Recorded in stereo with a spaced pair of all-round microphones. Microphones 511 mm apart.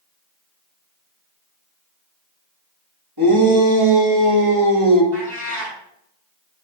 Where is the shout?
50° right (ahead or behind), 4.5 m; by 5.0 s 40° right (ahead or behind), 5.5 m.